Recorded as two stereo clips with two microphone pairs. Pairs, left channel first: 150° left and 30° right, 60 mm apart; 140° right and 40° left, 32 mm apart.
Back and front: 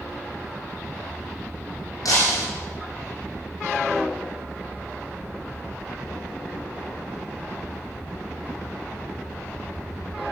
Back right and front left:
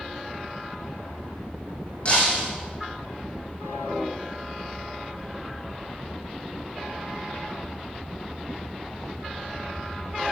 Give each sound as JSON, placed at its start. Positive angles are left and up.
{"t": 2.0, "sound": "breaking glass", "azimuth_deg": 165, "distance_m": 6.0}